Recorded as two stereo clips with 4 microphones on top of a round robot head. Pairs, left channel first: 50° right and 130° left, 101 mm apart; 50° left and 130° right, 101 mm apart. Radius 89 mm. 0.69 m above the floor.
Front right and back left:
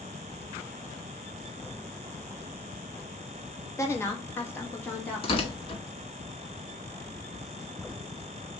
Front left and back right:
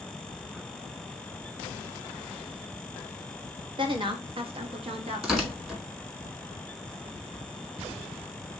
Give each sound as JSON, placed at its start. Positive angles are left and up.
{"t": 3.8, "sound": "a woman speaking", "azimuth_deg": -110, "distance_m": 1.3}
{"t": 5.2, "sound": "tearing paper", "azimuth_deg": -50, "distance_m": 1.8}